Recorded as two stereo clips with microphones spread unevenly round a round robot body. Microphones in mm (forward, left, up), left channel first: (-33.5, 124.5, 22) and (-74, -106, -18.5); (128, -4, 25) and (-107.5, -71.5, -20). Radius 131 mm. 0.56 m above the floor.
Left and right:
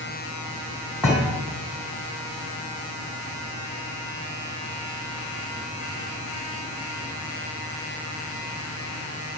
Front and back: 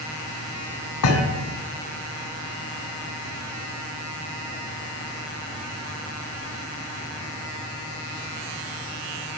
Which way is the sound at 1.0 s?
10° right.